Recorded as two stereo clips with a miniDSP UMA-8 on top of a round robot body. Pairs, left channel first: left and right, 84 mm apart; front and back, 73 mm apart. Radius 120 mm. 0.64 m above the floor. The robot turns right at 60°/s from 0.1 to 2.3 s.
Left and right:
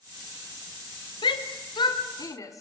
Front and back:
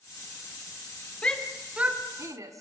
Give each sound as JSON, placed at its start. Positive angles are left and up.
{"t": 1.2, "sound": "a shout", "azimuth_deg": 70, "distance_m": 2.5}